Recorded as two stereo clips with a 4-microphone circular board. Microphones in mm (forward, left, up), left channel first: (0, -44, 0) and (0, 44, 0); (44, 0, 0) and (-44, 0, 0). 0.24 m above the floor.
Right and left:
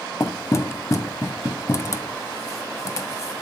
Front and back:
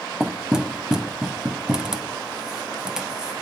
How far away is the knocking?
About 0.9 m.